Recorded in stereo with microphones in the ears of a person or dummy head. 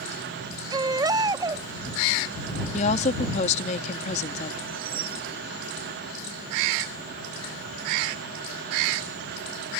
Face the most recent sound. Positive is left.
turn(degrees=-35)  # may be behind; listen again after turning